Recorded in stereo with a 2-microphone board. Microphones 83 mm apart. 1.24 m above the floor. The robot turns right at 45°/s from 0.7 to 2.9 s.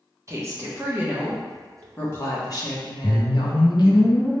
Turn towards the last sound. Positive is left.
turn(degrees=35)  # may be behind; listen again after turning